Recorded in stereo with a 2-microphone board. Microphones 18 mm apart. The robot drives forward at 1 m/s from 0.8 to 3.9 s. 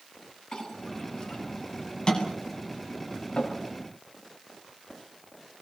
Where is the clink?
35° left (ahead or behind), 8.5 m; by 3.5 s 50° left (ahead or behind), 6.5 m.